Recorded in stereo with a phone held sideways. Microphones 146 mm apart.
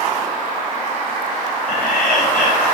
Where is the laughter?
85° left, 4 m.